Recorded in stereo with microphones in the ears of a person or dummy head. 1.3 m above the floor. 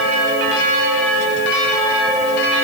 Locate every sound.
Only background noise.